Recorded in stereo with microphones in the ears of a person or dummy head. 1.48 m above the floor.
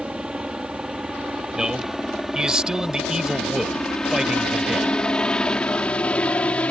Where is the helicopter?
Centre (ahead or behind); by 6.7 s 10° left (ahead or behind).